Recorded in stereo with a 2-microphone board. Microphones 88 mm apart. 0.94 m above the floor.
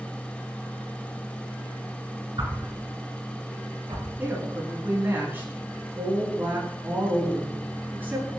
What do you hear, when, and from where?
2.4 s a whoosh: 70° right (ahead or behind), 5.5 m
4.2 s a woman speaking: 25° right (ahead or behind), 9 m